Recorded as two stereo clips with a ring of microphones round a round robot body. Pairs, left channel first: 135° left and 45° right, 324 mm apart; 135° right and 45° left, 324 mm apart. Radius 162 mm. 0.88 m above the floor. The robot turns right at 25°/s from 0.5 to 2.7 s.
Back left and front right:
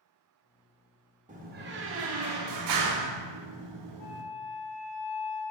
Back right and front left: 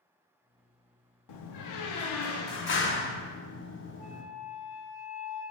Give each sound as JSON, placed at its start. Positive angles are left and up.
{"t": 1.3, "sound": "a door slam", "azimuth_deg": -115, "distance_m": 0.7}
{"t": 4.0, "sound": "a flute", "azimuth_deg": 150, "distance_m": 2.5}